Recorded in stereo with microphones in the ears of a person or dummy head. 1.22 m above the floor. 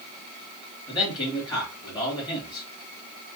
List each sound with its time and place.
0.9 s a man speaking: 25° left (ahead or behind), 2.5 m